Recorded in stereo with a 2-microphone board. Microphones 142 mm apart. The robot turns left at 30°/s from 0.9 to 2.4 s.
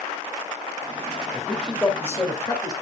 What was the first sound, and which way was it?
A man speaking, 175° right.